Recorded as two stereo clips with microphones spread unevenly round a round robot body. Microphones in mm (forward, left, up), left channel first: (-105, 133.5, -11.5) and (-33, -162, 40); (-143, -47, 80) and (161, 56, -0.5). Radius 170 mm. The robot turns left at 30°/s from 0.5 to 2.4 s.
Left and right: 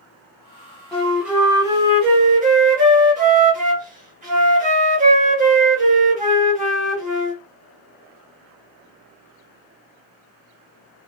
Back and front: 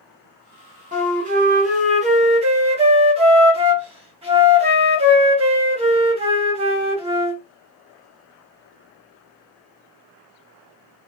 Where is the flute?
30° left, 1.0 m; by 7.4 s 15° right, 1.0 m.